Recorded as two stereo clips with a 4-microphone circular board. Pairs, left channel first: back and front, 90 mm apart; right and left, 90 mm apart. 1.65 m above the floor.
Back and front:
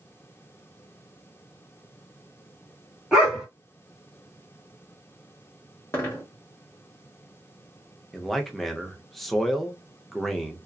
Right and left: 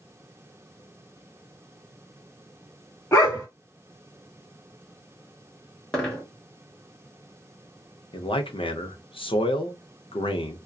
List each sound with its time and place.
3.1 s a dog barking: 80° right, 1.2 m
5.9 s a dropped coin: 160° right, 1.0 m
8.1 s a man speaking: 90° right, 0.6 m